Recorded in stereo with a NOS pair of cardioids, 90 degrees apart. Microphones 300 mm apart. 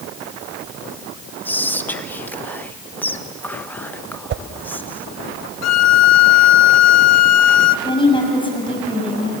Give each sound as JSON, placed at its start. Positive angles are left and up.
{"t": 1.4, "sound": "whispering", "azimuth_deg": 5, "distance_m": 1.3}
{"t": 4.3, "sound": "a whoosh", "azimuth_deg": -40, "distance_m": 0.7}
{"t": 5.6, "sound": "a violin", "azimuth_deg": 60, "distance_m": 0.6}
{"t": 7.8, "sound": "a woman speaking", "azimuth_deg": 15, "distance_m": 6.0}